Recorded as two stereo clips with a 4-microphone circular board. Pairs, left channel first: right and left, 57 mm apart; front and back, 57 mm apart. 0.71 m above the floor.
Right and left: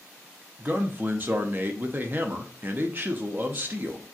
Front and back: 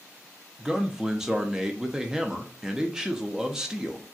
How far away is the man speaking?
About 0.7 m.